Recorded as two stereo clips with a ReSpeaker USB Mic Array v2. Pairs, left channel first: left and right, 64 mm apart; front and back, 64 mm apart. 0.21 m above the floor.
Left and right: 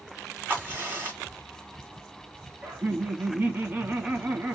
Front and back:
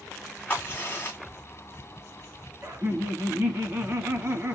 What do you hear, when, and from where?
0.5 s a crack: 45° right, 1.9 m
2.6 s laughter: 140° right, 1.5 m